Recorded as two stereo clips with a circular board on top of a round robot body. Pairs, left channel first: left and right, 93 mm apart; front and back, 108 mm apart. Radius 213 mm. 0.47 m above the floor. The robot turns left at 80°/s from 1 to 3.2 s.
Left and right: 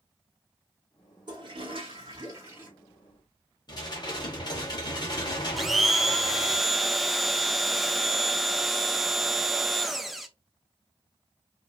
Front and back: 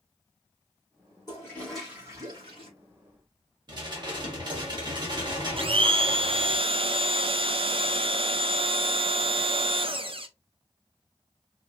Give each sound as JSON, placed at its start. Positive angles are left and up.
{"t": 1.3, "sound": "a toilet flushing", "azimuth_deg": -50, "distance_m": 3.0}
{"t": 3.7, "sound": "dishes clattering", "azimuth_deg": 135, "distance_m": 1.7}
{"t": 5.6, "sound": "a blender", "azimuth_deg": 180, "distance_m": 0.8}